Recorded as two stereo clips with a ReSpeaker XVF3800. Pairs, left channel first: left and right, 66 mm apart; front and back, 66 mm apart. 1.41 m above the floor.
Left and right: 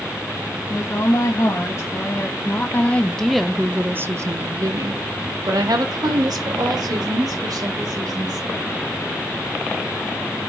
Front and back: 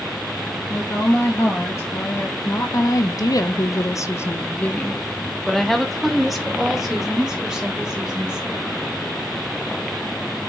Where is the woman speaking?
50° left, 2.5 m; by 8.7 s 100° right, 3.5 m.